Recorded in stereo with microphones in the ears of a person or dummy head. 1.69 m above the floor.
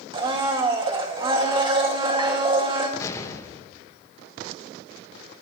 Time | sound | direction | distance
0.1 | a blender | 25° right (ahead or behind) | 2 m
3.0 | an explosion | 20° left (ahead or behind) | 1.4 m